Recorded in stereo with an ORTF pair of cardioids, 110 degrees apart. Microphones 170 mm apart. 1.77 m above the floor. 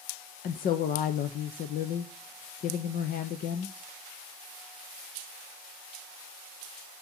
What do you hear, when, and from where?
0.4 s a woman speaking: 60° left, 1.0 m